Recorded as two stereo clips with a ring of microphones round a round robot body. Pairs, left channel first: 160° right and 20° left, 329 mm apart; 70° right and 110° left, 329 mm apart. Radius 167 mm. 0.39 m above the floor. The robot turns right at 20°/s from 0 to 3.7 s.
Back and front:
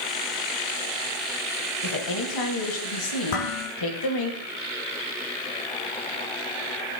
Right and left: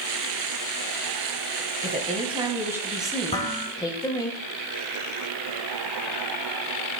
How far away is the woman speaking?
About 4.5 m.